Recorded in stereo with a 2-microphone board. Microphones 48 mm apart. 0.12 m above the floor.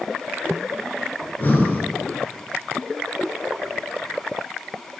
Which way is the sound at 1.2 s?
40° left (ahead or behind).